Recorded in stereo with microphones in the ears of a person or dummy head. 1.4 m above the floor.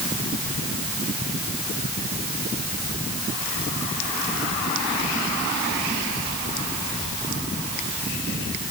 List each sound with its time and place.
Only background noise.